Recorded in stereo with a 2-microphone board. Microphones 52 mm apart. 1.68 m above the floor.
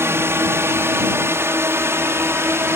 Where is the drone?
55° right (ahead or behind).